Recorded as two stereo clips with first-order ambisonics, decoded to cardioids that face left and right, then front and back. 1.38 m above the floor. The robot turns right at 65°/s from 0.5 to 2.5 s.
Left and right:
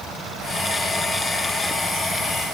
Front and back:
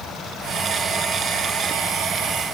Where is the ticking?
I don't hear ticking.